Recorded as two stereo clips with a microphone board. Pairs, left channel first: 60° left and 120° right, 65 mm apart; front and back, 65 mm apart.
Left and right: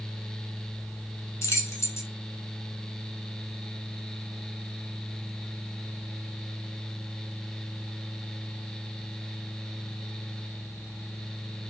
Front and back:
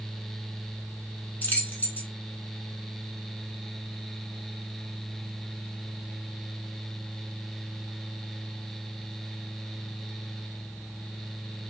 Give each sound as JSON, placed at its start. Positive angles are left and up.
{"t": 1.4, "sound": "keys jangling", "azimuth_deg": 50, "distance_m": 1.0}